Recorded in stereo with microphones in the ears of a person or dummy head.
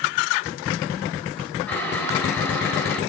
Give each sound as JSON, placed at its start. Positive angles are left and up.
{"t": 1.7, "sound": "boiling", "side_deg": 10, "distance_m": 7.0}